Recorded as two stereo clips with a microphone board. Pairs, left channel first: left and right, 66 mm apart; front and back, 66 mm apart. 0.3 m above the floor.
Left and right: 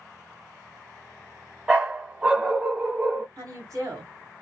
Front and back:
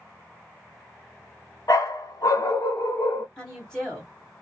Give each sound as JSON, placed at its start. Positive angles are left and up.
{"t": 1.7, "sound": "a dog barking", "azimuth_deg": -15, "distance_m": 0.7}
{"t": 3.4, "sound": "a woman speaking", "azimuth_deg": -75, "distance_m": 1.6}